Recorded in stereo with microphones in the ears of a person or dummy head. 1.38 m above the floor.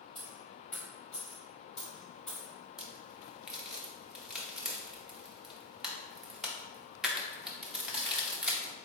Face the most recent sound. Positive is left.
turn(degrees=5)  # may be behind; listen again after turning